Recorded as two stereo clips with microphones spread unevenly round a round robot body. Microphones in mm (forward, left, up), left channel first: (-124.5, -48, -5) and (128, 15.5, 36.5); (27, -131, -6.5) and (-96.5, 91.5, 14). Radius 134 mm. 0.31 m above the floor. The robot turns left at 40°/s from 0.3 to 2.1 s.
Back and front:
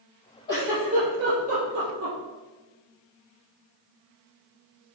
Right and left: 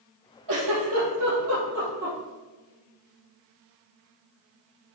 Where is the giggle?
120° left, 4 m; by 2.2 s 55° left, 4 m.